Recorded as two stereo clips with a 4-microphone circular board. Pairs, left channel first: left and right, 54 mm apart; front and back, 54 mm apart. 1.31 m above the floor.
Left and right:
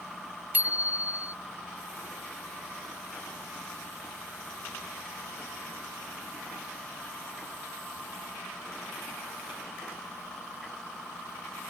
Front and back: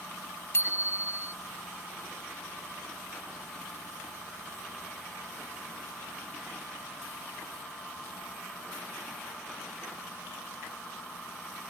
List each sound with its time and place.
0.5 s a bicycle bell: 30° right